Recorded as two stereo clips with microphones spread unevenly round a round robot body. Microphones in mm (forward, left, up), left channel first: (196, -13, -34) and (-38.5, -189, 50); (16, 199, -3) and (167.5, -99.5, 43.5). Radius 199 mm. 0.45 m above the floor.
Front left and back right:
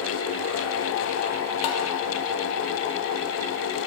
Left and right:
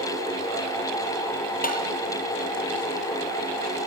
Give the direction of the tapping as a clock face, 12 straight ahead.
10 o'clock.